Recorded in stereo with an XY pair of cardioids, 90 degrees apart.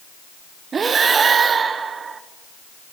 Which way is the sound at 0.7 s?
50° right.